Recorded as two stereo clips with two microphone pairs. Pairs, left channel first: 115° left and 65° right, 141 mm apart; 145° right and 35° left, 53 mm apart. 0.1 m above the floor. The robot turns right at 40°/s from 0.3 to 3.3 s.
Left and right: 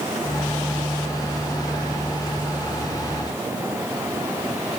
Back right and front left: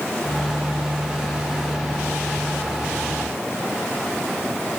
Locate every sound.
Only background noise.